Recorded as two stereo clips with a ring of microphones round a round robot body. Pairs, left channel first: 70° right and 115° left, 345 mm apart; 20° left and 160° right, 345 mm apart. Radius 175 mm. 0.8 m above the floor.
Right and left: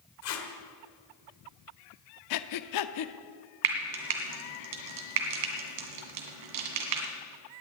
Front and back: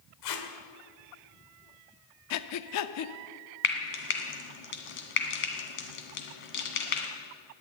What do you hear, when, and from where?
0.2 s tape being pulled: 15° right, 1.8 m
2.3 s breathing: 25° right, 0.7 m
3.6 s frying: 85° left, 2 m